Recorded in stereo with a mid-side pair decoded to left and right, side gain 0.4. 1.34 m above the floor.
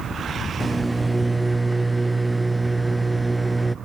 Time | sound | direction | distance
0.6 | a microwave | 10° right | 0.5 m